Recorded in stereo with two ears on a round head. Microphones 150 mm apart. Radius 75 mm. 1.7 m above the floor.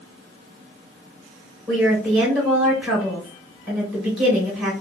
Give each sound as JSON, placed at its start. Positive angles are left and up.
{"t": 1.7, "sound": "a woman speaking", "side_deg": -10, "distance_m": 2.0}